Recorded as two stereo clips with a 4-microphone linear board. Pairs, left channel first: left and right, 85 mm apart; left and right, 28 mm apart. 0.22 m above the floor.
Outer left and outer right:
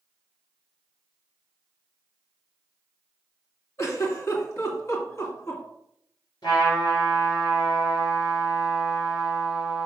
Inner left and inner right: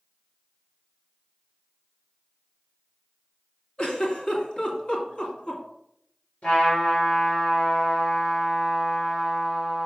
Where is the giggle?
40° left (ahead or behind), 2 m.